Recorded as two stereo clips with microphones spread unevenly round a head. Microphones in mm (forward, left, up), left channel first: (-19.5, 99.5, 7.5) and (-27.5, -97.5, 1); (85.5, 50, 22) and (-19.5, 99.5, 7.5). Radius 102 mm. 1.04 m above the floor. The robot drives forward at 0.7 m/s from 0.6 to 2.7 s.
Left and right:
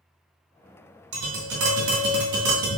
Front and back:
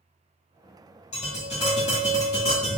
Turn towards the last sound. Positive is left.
turn(degrees=-105)